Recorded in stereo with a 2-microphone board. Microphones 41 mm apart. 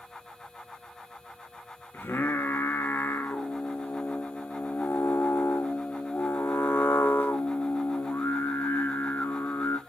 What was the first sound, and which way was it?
Singing, 65° left (ahead or behind).